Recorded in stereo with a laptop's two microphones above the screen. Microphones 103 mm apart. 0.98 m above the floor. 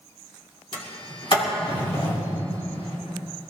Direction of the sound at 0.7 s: 55° left (ahead or behind).